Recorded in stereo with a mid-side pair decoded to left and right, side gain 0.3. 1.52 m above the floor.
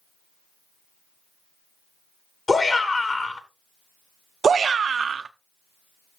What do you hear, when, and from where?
2.5 s a shout: 45° left, 2.5 m
4.4 s a shout: 65° right, 0.8 m